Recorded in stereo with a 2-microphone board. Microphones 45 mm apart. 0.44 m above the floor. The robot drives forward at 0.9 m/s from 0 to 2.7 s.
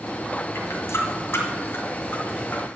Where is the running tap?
80° left, 1.9 m; by 2.7 s 45° left (ahead or behind), 2.5 m.